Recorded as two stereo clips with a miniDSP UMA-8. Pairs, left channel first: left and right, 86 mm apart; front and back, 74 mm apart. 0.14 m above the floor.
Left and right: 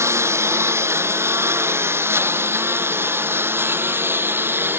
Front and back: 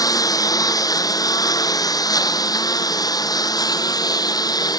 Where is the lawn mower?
30° right; by 4.8 s 25° right.